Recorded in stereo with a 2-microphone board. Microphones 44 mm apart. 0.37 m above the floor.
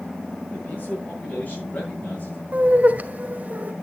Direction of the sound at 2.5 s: 40° right (ahead or behind).